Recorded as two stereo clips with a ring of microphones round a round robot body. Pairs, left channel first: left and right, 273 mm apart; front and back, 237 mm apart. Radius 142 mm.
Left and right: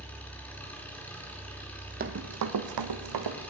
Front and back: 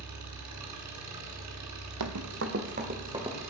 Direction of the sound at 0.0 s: 175° left.